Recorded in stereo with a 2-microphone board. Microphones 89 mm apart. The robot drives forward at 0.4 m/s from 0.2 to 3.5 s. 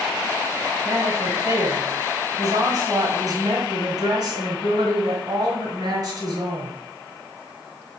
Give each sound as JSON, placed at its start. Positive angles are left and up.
{"t": 0.8, "sound": "a woman speaking", "side_deg": -40, "distance_m": 2.0}